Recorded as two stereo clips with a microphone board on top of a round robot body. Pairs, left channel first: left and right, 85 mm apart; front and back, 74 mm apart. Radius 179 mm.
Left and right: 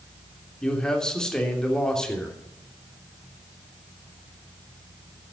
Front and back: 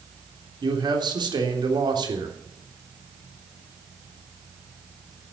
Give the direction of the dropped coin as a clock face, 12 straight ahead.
I don't hear a dropped coin.